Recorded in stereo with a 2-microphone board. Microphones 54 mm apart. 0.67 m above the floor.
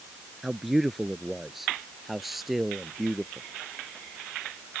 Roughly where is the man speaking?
Centre.